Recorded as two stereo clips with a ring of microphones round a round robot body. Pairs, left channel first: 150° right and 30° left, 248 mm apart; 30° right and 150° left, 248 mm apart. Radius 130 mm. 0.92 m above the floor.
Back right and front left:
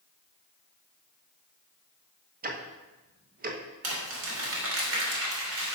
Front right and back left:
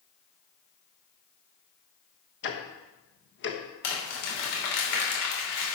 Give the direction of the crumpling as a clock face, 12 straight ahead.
12 o'clock.